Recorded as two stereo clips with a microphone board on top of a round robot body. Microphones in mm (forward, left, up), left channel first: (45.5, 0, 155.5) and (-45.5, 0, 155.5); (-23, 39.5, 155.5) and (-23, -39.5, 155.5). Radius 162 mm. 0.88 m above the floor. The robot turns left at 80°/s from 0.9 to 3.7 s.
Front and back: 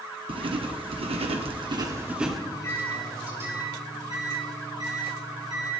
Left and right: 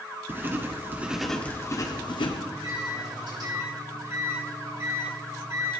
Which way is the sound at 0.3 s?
155° right.